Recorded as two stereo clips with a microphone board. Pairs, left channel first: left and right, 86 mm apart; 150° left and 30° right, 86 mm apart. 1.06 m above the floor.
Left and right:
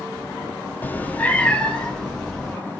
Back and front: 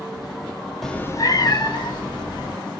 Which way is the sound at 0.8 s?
70° left.